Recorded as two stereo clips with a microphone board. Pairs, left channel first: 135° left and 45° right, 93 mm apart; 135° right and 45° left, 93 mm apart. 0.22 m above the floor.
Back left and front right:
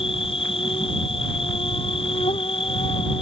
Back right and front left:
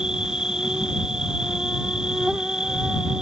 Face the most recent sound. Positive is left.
turn(degrees=125)